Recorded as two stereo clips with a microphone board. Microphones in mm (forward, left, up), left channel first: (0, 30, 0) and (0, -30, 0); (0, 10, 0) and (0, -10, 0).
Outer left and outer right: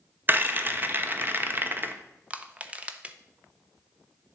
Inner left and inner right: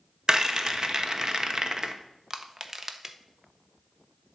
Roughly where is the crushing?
Right.